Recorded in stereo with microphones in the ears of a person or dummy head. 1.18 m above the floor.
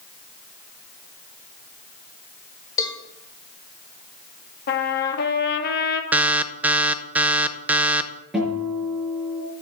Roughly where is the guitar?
Centre.